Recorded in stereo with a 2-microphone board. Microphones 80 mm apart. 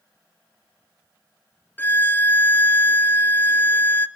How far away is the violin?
About 0.6 m.